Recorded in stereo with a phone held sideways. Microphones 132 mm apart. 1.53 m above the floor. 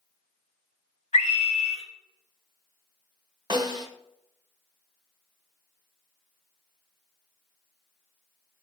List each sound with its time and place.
1.1 s a scream: 65° left (ahead or behind), 3 m
3.5 s a snare drum: 35° right (ahead or behind), 1.4 m